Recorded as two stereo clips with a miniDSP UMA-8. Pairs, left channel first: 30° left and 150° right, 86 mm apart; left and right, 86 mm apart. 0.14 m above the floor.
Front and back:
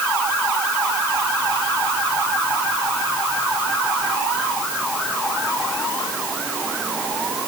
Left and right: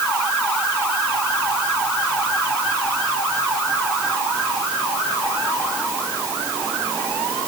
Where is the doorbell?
No doorbell in this recording.